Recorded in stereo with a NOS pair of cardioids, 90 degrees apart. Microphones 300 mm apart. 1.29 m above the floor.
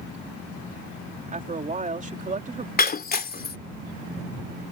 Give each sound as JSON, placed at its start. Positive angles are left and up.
{"t": 1.3, "sound": "a woman speaking", "azimuth_deg": -25}
{"t": 2.8, "sound": "breaking glass", "azimuth_deg": 30}